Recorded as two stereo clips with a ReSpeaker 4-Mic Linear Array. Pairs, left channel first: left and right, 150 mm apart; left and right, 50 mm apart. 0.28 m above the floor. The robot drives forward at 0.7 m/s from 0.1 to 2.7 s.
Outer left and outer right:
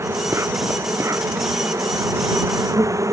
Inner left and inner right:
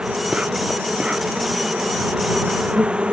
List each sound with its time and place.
0.0 s an insect: 20° right (ahead or behind)